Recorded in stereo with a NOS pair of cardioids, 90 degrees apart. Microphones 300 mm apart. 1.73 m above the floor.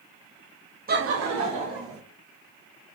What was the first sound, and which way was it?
Laughter, 30° right.